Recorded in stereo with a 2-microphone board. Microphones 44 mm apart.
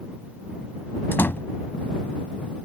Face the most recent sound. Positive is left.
turn(degrees=55)  # may be behind; listen again after turning